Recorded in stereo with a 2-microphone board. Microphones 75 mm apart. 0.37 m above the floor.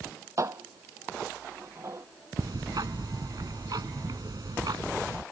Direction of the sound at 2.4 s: 65° right (ahead or behind).